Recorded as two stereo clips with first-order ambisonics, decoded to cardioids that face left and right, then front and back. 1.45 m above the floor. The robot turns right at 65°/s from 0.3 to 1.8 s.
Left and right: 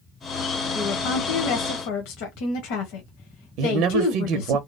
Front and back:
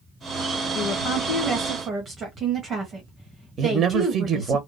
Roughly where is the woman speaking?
Ahead left.